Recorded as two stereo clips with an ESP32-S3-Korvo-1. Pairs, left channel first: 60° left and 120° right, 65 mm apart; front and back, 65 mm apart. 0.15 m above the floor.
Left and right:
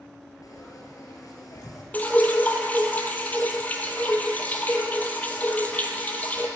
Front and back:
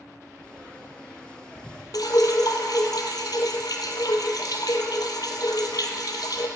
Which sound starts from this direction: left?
Frying, at 0.4 s.